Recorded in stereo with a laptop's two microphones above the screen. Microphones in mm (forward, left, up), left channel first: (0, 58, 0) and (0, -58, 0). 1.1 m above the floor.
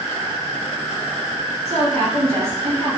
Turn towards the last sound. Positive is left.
turn(degrees=-60)  # may be behind; listen again after turning